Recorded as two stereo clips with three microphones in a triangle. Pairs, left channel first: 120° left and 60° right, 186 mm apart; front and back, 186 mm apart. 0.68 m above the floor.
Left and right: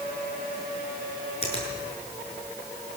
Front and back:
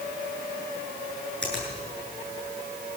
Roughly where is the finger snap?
Behind.